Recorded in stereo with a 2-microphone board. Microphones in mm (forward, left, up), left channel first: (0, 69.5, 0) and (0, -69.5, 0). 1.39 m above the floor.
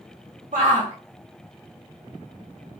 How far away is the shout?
About 0.6 m.